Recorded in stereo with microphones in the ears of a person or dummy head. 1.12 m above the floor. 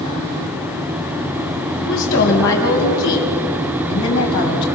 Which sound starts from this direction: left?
A woman speaking, at 1.8 s.